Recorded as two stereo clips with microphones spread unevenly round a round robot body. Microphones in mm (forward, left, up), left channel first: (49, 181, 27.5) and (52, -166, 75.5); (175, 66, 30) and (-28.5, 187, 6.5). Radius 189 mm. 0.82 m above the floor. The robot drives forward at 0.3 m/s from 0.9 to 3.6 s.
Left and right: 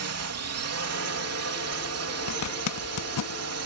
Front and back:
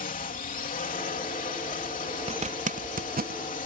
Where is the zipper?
95° left; by 3.4 s 110° left.